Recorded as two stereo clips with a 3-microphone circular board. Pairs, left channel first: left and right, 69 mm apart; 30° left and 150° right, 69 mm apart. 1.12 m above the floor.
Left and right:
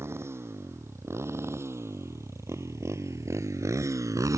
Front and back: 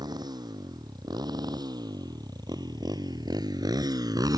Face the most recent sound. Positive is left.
turn(degrees=-125)